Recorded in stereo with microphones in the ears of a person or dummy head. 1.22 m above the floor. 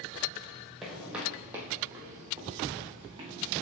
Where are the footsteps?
Centre (ahead or behind), 2 m; by 3.4 s 25° right (ahead or behind), 3.5 m.